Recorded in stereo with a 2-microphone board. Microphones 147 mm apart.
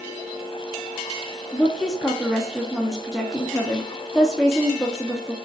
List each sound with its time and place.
1.5 s a woman speaking: centre (ahead or behind), 0.7 m